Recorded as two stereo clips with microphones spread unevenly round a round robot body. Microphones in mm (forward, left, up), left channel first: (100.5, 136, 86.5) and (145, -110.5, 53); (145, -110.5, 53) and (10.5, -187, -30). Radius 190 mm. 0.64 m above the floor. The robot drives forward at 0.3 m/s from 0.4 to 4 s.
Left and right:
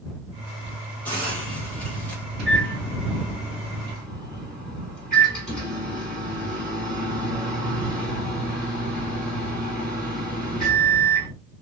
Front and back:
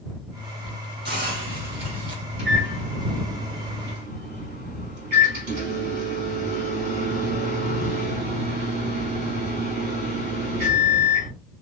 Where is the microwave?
170° right, 3.5 m.